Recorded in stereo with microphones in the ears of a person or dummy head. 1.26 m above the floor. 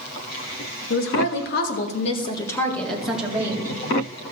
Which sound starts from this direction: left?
A woman speaking, at 0.9 s.